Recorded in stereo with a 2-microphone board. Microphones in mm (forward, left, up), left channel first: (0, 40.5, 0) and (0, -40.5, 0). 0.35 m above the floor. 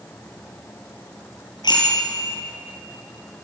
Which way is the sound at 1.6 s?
60° left (ahead or behind).